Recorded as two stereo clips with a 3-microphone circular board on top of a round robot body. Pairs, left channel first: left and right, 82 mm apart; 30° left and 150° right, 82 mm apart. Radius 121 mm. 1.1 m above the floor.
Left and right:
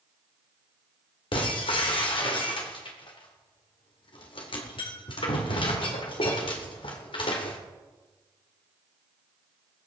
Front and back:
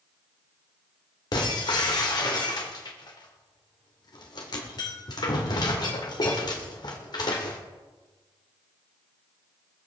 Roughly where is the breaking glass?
Left.